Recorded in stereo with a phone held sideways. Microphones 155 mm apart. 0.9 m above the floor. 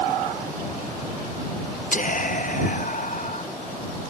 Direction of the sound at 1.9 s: 60° left (ahead or behind).